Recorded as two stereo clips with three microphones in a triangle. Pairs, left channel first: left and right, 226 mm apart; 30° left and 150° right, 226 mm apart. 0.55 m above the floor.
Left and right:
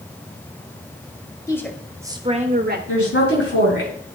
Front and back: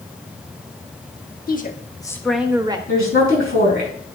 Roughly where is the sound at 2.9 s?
Left.